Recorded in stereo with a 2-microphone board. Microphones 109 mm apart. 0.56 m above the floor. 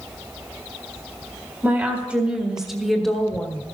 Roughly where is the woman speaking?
Right.